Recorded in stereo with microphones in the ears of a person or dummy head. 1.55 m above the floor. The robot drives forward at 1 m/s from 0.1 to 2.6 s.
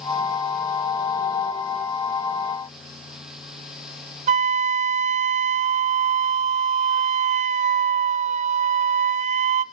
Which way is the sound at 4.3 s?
35° right (ahead or behind).